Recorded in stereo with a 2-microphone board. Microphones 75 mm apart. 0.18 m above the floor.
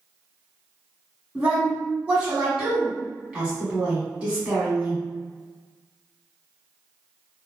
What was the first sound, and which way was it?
A woman speaking, 15° right (ahead or behind).